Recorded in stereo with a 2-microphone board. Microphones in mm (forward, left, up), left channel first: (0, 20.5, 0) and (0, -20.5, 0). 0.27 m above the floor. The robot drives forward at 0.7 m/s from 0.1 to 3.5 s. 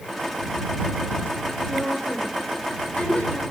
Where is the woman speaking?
30° left (ahead or behind), 4.5 m; by 3.4 s 35° left (ahead or behind), 3.5 m.